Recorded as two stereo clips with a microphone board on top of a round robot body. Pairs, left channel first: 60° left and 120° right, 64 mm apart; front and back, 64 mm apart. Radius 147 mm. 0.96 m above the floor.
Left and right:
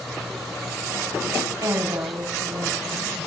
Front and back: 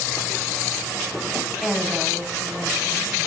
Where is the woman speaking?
90° right, 6.5 m.